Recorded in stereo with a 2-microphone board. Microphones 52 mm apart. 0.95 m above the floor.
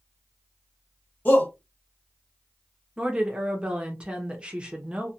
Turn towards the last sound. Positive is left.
turn(degrees=-20)  # may be behind; listen again after turning